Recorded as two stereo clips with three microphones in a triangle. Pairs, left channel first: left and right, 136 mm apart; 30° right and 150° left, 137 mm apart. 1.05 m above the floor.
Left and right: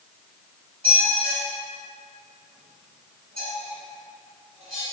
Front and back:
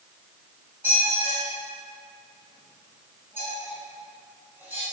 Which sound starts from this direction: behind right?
A squeak, at 0.8 s.